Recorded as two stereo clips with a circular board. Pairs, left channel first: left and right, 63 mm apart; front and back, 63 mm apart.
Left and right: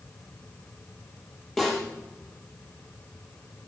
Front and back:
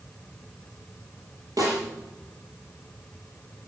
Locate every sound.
1.6 s a snare drum: 175° left, 6.5 m